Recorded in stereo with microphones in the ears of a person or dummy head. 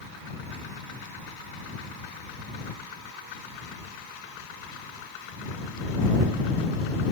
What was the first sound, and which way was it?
Only background noise.